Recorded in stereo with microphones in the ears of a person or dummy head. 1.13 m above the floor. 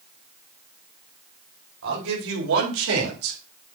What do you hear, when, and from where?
1.8 s a man speaking: 70° right (ahead or behind), 5 m; by 3.4 s 85° right, 3.5 m